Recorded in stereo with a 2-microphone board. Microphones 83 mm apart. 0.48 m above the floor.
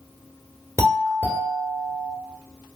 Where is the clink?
I don't hear a clink.